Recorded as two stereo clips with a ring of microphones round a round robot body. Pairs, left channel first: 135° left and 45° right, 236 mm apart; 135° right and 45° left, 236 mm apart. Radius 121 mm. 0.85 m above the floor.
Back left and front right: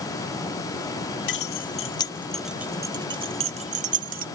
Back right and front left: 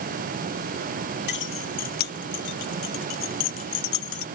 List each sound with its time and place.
1.3 s keys jangling: 175° left; by 4.2 s 100° right